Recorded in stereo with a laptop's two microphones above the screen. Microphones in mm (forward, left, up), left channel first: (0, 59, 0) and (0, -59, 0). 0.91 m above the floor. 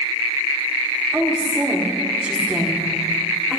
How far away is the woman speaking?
About 2 m.